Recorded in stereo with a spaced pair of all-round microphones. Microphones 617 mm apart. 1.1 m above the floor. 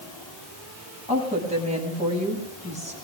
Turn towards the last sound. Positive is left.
turn(degrees=-10)  # may be behind; listen again after turning